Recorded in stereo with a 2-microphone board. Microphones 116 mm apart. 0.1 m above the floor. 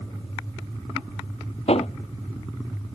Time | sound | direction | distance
1.7 | hammering | 65° left (ahead or behind) | ?